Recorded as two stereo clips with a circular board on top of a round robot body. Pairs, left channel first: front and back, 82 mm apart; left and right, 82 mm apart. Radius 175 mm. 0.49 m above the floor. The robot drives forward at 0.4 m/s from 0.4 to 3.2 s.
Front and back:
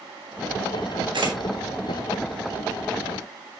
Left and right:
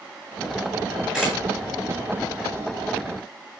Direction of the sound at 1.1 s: 175° right.